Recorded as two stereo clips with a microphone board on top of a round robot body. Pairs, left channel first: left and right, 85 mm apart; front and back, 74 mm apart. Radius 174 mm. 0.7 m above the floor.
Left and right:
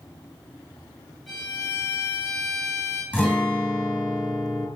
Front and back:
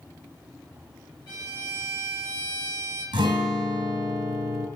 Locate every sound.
1.3 s a violin: straight ahead, 3.5 m
3.1 s a guitar: 165° left, 2.5 m